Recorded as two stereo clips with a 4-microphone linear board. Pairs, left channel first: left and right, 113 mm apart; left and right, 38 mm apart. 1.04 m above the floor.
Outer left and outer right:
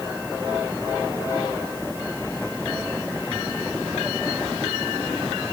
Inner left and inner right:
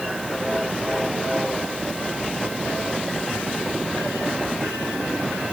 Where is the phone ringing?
No phone ringing in this recording.